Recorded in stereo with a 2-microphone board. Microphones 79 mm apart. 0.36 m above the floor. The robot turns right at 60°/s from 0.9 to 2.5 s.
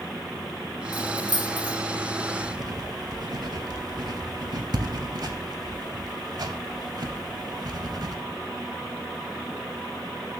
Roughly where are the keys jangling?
Left.